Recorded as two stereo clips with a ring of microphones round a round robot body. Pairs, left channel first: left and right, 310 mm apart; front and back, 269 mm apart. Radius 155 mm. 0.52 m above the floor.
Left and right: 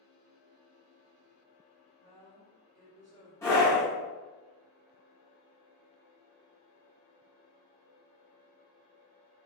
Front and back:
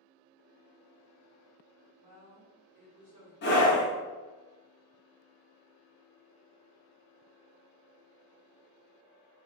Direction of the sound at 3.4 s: 15° left.